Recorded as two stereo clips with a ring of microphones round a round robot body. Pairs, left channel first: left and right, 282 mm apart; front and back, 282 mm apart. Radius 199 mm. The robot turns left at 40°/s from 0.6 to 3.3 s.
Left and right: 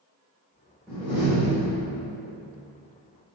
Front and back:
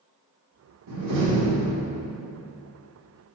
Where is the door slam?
Straight behind, 2 m; by 2.0 s 135° left, 2 m.